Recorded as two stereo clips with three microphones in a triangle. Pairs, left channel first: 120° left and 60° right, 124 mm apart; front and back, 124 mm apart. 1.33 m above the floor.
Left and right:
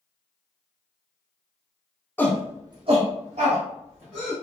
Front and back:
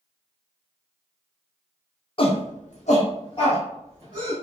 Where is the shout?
50° left, 0.5 m; by 4.3 s 60° right, 1.7 m.